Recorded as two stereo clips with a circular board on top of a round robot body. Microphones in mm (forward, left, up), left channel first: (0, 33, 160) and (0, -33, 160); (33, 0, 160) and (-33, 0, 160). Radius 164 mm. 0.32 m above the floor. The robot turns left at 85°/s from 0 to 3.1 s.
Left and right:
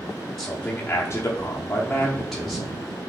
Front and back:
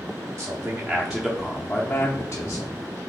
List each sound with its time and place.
0.4 s a man speaking: 160° left, 1.1 m; by 2.7 s 40° right, 1.1 m